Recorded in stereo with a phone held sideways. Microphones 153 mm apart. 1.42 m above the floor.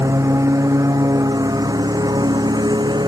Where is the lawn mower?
20° right (ahead or behind); by 3.1 s 30° right (ahead or behind).